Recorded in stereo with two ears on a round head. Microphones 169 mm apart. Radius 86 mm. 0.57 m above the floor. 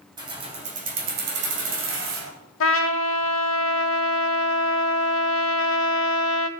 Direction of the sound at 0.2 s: 25° right (ahead or behind).